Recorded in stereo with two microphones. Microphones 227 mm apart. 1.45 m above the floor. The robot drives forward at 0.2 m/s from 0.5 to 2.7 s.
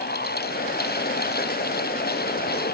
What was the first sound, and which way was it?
Only background noise.